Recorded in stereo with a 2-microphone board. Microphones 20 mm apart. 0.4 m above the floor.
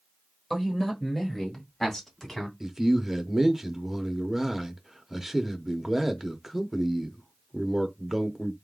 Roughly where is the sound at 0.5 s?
Centre.